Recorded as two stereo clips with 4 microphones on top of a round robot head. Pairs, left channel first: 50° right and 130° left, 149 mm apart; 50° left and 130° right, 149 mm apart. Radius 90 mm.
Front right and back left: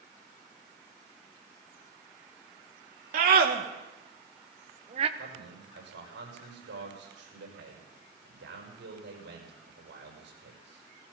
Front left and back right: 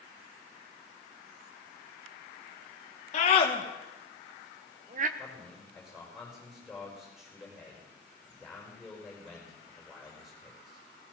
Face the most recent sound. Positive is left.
turn(degrees=145)